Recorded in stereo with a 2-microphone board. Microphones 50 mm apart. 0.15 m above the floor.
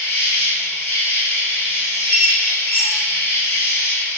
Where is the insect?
50° left (ahead or behind), 0.8 m.